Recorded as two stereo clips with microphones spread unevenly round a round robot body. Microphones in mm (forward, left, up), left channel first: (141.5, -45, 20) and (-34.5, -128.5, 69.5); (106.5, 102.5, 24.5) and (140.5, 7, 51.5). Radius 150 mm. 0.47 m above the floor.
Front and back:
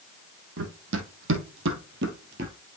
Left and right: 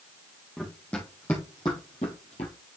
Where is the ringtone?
I don't hear a ringtone.